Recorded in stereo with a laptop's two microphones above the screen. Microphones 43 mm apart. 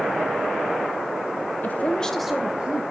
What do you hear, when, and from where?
1.6 s a woman speaking: 45° left (ahead or behind), 0.9 m; by 2.8 s 30° right (ahead or behind), 1.4 m